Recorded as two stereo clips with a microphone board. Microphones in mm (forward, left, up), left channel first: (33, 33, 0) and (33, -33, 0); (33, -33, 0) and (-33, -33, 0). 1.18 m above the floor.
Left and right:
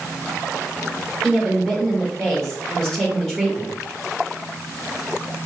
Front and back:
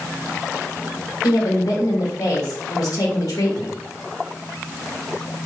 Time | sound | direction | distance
1.2 | a woman speaking | 10° left | 1.9 m